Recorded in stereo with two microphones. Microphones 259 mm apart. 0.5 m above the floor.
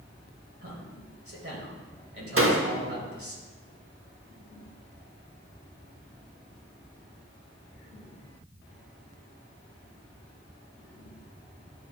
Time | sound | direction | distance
0.6 | a man speaking | 55° right (ahead or behind) | 2.5 m
2.4 | a door slam | 55° right (ahead or behind) | 0.8 m